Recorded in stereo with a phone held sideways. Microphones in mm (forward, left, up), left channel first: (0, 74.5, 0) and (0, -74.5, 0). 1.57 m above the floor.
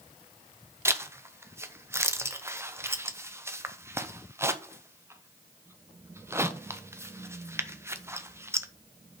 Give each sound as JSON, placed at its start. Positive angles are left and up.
{"t": 0.8, "sound": "a zipper", "side_deg": -15, "distance_m": 0.7}